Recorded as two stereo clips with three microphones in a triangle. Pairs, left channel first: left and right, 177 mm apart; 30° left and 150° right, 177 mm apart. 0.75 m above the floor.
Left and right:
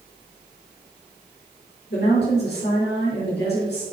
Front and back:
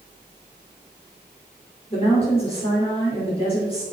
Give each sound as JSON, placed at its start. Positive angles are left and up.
{"t": 1.9, "sound": "a woman speaking", "azimuth_deg": 85, "distance_m": 3.0}